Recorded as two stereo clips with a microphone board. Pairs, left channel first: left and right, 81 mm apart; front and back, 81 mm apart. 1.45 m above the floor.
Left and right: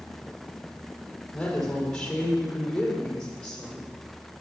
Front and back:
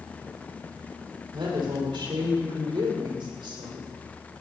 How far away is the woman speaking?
About 4.5 m.